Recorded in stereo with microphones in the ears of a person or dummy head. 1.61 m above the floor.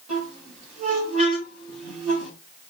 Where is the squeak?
45° right (ahead or behind), 1.8 m.